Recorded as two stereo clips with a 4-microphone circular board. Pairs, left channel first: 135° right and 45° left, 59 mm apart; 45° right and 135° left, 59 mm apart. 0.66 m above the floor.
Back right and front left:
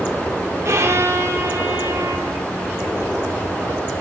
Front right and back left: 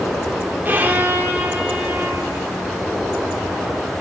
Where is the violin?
80° left, 0.9 m.